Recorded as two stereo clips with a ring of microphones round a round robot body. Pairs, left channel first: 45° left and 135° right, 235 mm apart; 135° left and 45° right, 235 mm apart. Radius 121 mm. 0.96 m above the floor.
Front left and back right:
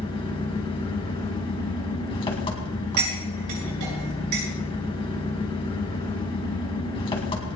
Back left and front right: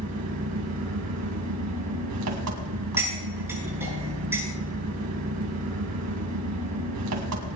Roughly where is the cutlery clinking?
Behind right.